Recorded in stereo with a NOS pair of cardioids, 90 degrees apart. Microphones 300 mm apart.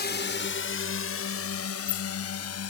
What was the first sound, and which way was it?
A drone, 35° left.